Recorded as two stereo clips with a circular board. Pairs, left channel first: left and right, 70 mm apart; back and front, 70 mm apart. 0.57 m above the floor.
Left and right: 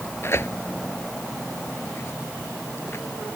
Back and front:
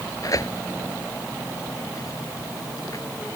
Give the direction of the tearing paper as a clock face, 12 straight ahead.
7 o'clock.